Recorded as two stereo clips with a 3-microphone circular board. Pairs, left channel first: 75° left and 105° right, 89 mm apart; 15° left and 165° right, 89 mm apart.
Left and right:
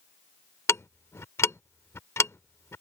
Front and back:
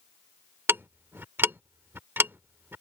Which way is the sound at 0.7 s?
130° left.